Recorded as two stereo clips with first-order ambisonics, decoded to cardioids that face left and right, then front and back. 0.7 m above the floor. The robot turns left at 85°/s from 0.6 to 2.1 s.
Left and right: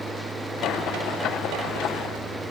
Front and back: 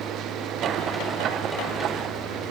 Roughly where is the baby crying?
I don't hear a baby crying.